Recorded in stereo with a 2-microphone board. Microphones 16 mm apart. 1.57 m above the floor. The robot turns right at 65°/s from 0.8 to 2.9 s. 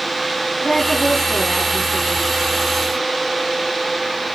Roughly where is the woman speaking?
Behind left.